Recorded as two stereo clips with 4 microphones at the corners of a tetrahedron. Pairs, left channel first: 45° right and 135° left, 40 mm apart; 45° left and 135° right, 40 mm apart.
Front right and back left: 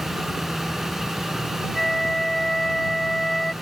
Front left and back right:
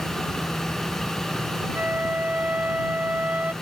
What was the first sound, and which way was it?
A flute, 120° right.